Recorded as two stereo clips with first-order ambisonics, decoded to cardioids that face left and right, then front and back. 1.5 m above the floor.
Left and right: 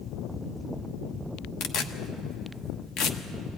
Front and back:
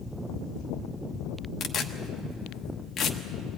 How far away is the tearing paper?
About 1.1 m.